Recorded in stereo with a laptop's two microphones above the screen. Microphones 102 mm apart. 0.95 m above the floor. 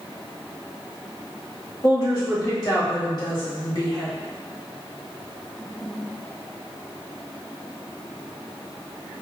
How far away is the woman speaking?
About 1.5 m.